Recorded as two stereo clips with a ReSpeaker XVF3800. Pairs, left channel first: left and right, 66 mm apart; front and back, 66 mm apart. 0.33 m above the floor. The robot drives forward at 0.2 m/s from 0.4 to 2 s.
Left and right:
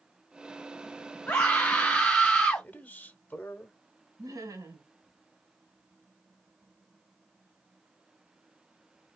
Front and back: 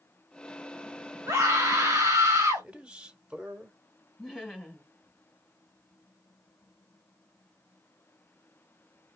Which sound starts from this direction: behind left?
A man speaking, at 2.6 s.